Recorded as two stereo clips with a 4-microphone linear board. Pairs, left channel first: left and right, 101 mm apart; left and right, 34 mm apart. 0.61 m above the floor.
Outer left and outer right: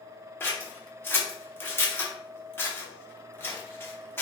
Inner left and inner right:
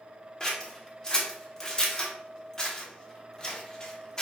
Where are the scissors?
20° left (ahead or behind), 0.8 m.